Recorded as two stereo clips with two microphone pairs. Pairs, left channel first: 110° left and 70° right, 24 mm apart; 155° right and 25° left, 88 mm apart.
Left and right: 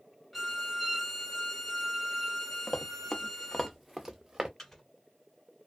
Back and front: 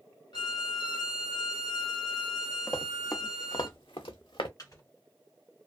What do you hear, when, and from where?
0.3 s a violin: 170° right, 0.9 m
2.7 s running footsteps: 145° left, 0.9 m; by 4.5 s 135° right, 0.8 m
4.6 s a microwave: 175° left, 1.6 m